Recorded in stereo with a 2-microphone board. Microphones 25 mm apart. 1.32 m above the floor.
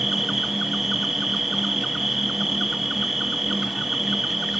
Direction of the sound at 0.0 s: 15° right (ahead or behind).